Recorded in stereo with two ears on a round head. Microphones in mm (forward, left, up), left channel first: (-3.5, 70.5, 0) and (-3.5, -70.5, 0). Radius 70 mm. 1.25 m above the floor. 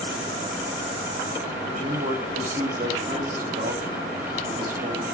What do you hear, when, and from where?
1.7 s a man speaking: 55° right (ahead or behind), 8 m